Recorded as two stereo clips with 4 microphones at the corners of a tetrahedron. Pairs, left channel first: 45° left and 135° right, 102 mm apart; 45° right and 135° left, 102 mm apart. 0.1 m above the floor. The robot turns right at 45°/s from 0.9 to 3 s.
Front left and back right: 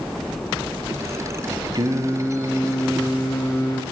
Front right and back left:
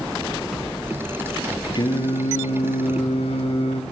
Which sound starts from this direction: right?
Singing, at 1.8 s.